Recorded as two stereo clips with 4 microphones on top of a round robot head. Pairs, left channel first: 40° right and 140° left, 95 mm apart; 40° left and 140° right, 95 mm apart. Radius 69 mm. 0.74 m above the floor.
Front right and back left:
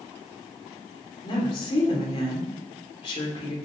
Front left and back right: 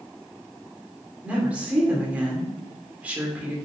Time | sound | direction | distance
1.2 | a woman speaking | 65° right | 3 m